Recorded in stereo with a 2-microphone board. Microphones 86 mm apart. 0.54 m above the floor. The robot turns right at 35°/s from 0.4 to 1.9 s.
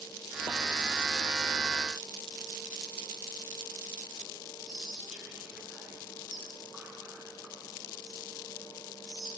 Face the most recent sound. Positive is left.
turn(degrees=-10)  # may be behind; listen again after turning